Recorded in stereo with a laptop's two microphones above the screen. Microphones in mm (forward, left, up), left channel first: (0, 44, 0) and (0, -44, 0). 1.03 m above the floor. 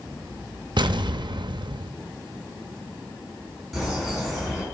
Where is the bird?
5° right (ahead or behind), 4.5 m.